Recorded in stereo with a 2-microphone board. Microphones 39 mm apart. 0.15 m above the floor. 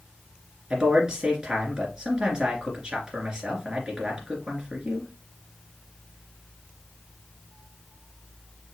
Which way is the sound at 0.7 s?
20° right (ahead or behind).